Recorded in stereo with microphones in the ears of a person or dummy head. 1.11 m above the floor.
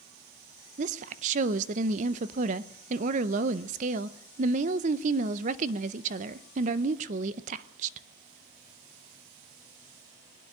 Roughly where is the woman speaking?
Right.